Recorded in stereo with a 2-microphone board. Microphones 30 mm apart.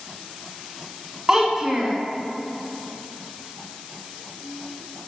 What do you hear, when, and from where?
1.3 s a child speaking: 20° right (ahead or behind), 0.8 m